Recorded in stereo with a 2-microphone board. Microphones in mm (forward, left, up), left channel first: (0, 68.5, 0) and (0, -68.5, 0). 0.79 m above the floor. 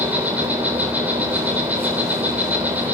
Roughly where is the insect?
Centre.